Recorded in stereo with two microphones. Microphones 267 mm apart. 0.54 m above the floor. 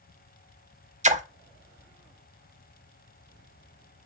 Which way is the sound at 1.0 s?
30° right (ahead or behind).